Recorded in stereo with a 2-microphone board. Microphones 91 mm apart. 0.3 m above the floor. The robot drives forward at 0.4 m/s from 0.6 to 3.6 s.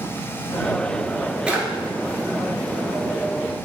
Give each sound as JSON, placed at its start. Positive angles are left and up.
{"t": 1.5, "sound": "a drawer", "side_deg": -10, "distance_m": 1.0}